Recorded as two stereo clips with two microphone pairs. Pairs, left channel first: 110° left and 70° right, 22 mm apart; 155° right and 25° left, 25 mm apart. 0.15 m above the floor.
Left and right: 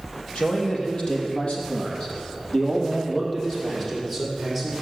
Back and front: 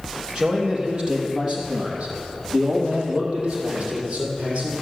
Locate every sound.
0.3 s a man speaking: 75° left, 4 m; by 4.8 s 35° left, 5 m